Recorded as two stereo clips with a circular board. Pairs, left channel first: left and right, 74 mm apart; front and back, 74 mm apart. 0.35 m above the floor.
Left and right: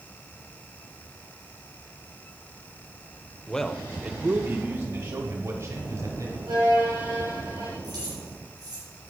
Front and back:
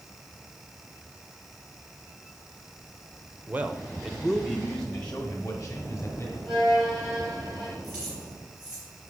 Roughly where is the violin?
Right.